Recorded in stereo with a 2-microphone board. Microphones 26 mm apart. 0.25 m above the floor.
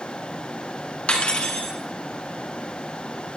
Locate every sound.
1.1 s cutlery clinking: 50° left (ahead or behind), 1.7 m